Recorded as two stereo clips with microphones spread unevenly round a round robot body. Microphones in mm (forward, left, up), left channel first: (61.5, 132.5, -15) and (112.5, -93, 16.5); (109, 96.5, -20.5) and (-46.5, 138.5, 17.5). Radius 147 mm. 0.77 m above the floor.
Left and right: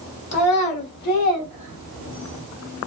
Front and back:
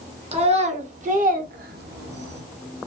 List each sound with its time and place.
0.3 s a child speaking: 110° left, 1.3 m; by 2.4 s 165° left, 0.7 m